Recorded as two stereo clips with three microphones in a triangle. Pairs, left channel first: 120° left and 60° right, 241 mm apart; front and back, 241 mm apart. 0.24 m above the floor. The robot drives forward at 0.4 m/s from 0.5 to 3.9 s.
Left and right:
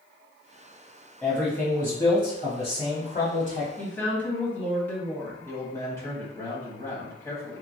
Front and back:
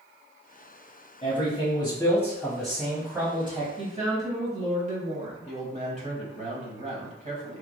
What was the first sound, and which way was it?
A man speaking, 35° left.